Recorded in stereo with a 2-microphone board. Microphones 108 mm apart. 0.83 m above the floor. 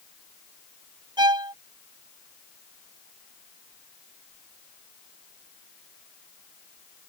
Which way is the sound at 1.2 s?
40° right (ahead or behind).